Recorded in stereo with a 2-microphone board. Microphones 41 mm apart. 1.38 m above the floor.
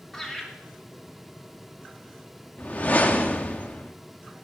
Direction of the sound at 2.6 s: 40° left (ahead or behind).